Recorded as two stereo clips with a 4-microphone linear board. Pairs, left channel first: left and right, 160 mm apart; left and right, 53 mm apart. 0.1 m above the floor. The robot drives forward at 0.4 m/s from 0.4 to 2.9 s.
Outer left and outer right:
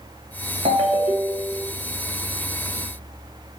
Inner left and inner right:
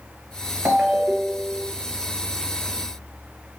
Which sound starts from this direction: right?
A ringtone, at 0.7 s.